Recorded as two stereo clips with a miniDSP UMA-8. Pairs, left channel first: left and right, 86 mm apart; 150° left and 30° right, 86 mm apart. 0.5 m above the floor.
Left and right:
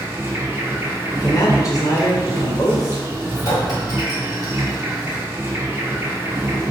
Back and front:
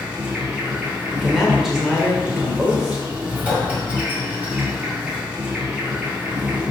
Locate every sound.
0.0 s an insect: 90° right, 1.0 m
1.1 s a man speaking: 55° left, 1.5 m
3.4 s a clink: 45° left, 1.3 m